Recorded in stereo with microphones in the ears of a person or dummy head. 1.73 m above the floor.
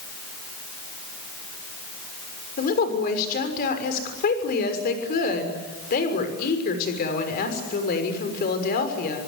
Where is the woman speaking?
45° left (ahead or behind), 6 m.